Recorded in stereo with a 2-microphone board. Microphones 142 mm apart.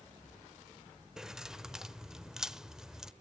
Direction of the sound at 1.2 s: 5° right (ahead or behind).